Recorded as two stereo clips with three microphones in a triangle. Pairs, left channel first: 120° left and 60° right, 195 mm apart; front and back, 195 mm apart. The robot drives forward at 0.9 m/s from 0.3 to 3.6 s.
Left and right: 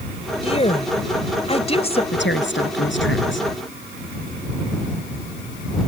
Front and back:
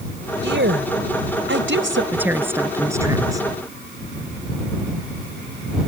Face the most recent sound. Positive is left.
turn(degrees=110)